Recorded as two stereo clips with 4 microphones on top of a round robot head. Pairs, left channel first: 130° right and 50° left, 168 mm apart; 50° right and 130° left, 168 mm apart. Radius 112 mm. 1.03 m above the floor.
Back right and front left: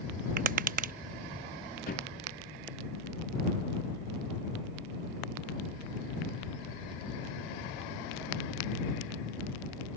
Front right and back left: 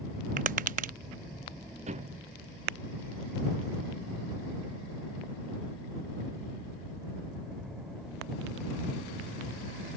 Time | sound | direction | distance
0.4 | tapping | 85° left | ?
1.9 | a thud | 175° right | ?